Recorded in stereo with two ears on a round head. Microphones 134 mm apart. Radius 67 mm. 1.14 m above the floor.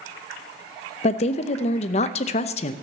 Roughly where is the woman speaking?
Left.